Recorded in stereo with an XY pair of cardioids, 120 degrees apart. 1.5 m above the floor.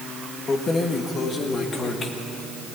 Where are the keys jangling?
40° left, 1.4 m.